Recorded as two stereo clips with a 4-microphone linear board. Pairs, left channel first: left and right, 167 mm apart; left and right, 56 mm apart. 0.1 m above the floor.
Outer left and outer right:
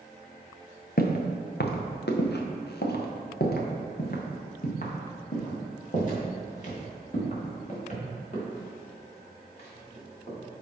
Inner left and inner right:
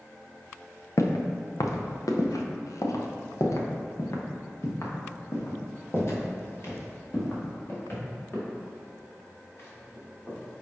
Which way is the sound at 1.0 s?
65° left (ahead or behind).